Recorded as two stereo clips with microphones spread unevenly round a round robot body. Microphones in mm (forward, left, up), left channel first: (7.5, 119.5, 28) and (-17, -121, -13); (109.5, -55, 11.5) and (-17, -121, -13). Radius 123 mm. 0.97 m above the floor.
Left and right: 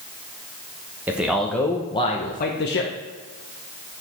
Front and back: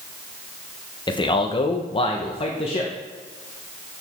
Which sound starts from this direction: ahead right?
A man speaking, at 1.1 s.